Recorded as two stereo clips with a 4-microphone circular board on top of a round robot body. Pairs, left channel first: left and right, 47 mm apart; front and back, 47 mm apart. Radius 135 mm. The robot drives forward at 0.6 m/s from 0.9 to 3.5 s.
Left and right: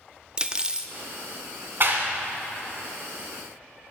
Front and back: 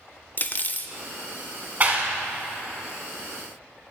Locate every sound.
0.4 s cutlery clinking: 25° right, 0.6 m
1.8 s a clap: 130° right, 1.3 m; by 2.2 s 140° right, 1.5 m